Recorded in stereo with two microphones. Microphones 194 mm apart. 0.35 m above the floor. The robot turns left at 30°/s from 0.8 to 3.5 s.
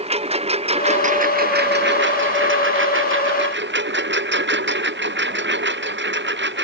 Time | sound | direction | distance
0.0 | a lawn mower | 30° right | ?